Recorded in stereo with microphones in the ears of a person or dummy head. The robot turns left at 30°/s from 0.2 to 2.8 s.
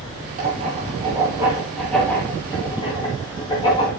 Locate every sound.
0.4 s writing: 45° right (ahead or behind), 6 m; by 3.9 s 25° left (ahead or behind), 6 m